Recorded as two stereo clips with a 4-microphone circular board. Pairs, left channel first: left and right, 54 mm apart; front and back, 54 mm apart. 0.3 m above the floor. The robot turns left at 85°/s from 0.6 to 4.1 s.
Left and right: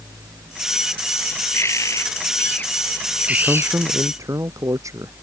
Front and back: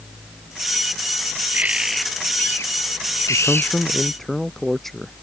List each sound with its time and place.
1.5 s a bird: 125° left; by 3.8 s 65° right
3.3 s a man speaking: 15° right; by 5.1 s 85° right